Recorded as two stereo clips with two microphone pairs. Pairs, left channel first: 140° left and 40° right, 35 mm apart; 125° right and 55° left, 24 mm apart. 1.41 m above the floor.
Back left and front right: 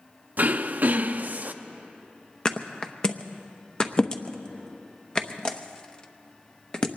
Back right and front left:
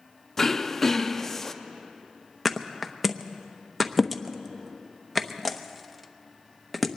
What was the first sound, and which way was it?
Throat clearing, 55° right.